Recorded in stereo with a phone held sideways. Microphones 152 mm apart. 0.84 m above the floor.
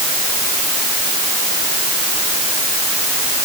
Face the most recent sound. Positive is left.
No sound to turn to.